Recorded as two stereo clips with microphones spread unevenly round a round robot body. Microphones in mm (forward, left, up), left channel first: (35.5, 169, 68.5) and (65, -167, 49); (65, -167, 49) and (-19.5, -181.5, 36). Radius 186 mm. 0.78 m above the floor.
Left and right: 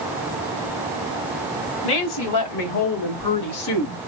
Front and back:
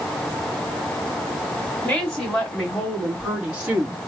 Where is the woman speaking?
90° left, 2.5 m; by 4.0 s 155° left, 1.2 m.